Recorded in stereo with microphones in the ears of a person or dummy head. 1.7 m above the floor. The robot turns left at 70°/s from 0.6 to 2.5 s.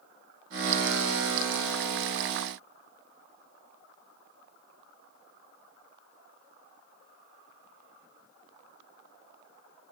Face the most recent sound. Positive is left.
No sound to turn to.